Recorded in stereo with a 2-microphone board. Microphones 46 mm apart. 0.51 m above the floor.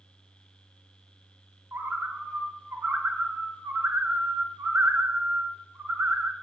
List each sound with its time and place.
1.7 s a bird: 65° right (ahead or behind), 0.9 m